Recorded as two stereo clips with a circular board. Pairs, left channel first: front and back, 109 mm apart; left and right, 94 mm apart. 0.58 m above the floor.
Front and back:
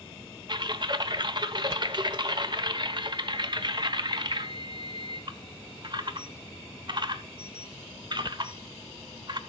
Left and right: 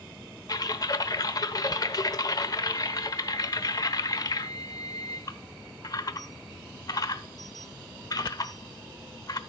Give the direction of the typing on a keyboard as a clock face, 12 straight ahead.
7 o'clock.